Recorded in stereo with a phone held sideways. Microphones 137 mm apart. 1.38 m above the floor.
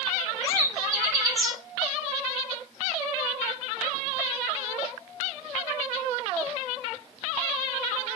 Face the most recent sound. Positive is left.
turn(degrees=-25)  # may be behind; listen again after turning